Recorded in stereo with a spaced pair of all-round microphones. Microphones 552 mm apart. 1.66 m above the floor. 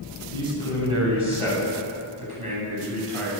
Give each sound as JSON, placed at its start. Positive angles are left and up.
{"t": 0.3, "sound": "a man speaking", "side_deg": -65, "distance_m": 9.0}